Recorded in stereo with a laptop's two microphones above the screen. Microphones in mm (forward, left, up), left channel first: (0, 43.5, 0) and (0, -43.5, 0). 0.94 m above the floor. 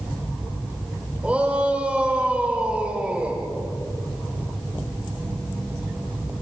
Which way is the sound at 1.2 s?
15° right (ahead or behind).